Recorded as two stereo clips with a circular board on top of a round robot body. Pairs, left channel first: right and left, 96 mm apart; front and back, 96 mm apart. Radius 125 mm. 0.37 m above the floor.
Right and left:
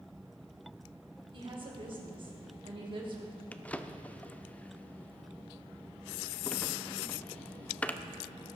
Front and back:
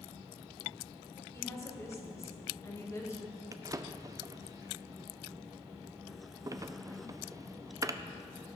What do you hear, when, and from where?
1.3 s a woman speaking: 60° left, 2.5 m
3.5 s a drawer: 155° right, 0.7 m